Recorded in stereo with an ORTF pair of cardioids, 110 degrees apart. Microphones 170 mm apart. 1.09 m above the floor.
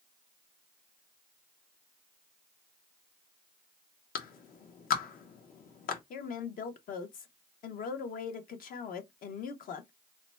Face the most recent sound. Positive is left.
turn(degrees=55)